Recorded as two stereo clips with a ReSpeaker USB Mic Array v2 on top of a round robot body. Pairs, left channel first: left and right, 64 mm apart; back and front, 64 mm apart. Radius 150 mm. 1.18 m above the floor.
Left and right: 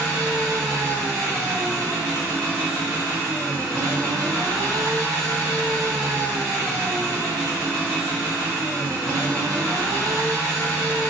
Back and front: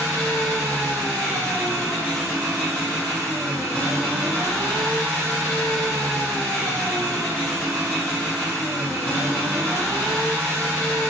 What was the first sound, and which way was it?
An engine running, 75° right.